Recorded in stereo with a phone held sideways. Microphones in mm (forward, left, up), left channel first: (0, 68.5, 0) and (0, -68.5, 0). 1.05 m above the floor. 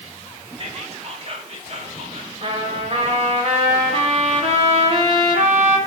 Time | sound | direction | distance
0.6 | whispering | 50° right (ahead or behind) | 1.8 m
2.4 | a trumpet | 50° right (ahead or behind) | 1.8 m